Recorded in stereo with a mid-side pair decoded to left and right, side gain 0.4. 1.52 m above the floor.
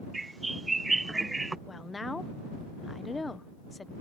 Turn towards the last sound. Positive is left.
turn(degrees=25)